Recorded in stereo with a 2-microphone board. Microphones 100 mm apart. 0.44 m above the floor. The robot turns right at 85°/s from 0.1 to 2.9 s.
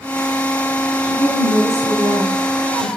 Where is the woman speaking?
120° left, 3 m; by 2.9 s 85° right, 3 m.